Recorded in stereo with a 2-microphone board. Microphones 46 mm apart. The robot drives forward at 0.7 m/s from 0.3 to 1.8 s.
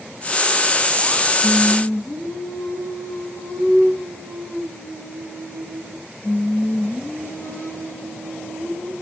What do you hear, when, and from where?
1.4 s singing: 60° left (ahead or behind), 9 m